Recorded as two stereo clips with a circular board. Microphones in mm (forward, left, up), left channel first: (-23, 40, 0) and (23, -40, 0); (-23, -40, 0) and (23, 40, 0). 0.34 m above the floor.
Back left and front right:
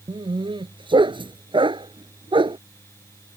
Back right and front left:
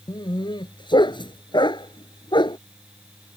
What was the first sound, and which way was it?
A dog barking, 85° right.